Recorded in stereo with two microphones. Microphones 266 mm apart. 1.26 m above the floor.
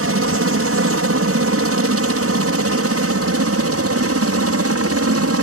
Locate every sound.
0.0 s a helicopter: 60° right (ahead or behind); by 5.4 s 65° right (ahead or behind)